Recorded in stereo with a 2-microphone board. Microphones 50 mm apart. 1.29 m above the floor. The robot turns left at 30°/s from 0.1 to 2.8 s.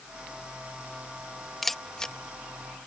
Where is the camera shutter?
5° left (ahead or behind); by 2.1 s 15° left (ahead or behind).